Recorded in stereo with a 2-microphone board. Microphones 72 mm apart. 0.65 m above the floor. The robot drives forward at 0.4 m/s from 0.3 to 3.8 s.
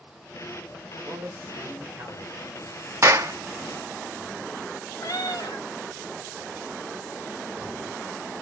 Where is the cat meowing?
70° left (ahead or behind), 1.2 m.